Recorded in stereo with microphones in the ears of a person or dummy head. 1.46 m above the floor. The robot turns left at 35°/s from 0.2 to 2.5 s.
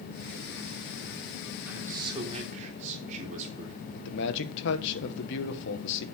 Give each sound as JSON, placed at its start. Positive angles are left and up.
{"t": 1.7, "sound": "a man speaking", "side_deg": -10, "distance_m": 3.5}
{"t": 4.0, "sound": "a man speaking", "side_deg": 65, "distance_m": 1.3}